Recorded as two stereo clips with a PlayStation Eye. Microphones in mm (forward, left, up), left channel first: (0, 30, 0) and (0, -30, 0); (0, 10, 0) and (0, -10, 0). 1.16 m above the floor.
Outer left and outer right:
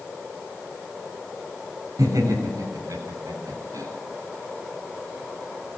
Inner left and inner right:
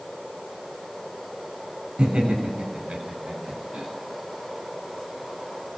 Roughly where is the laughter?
Right.